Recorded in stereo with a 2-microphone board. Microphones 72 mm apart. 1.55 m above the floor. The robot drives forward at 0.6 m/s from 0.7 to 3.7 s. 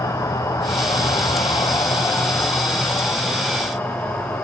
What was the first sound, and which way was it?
An insect, 55° left (ahead or behind).